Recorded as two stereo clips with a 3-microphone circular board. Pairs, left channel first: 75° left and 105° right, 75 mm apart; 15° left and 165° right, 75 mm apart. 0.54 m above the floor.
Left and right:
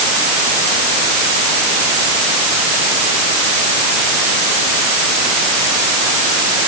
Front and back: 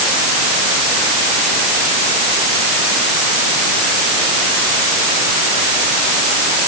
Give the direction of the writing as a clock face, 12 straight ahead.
No writing in this recording.